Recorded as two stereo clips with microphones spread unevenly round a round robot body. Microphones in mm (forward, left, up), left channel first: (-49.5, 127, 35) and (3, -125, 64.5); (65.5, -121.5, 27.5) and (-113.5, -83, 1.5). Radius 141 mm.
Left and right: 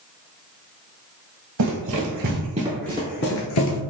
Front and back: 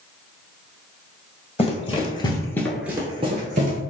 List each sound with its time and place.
1.6 s running footsteps: 65° right, 1.2 m; by 3.8 s 115° left, 0.9 m